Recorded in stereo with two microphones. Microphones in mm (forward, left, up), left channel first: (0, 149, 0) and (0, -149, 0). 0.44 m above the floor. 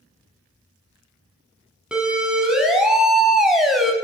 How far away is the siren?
About 5.5 m.